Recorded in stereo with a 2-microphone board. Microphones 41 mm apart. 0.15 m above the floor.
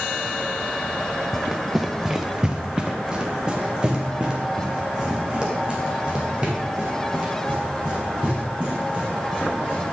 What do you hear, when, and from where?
1.3 s running footsteps: 5° right (ahead or behind), 0.7 m; by 9.8 s 25° right (ahead or behind), 6 m